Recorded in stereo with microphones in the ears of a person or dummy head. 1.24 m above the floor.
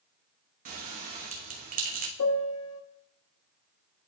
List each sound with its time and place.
0.7 s a bell: 30° right (ahead or behind), 0.9 m
2.2 s a piano: 75° left (ahead or behind), 0.8 m